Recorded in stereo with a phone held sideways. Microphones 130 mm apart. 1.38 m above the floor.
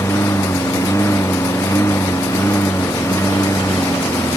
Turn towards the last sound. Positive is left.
turn(degrees=20)  # may be behind; listen again after turning